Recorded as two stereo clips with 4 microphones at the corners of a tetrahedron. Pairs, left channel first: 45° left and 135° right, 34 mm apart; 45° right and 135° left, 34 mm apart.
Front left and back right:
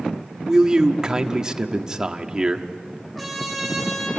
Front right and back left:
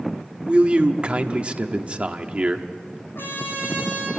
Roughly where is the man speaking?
Behind.